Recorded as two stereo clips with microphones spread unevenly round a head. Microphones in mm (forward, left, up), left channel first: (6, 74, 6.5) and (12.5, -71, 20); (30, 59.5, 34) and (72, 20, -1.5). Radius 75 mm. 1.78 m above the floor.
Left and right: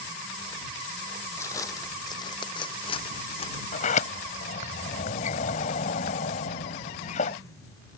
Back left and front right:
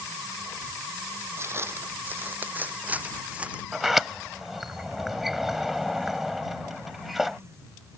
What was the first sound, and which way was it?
Footsteps, 20° left.